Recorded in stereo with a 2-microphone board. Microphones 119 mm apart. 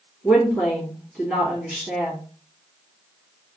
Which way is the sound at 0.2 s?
Centre (ahead or behind).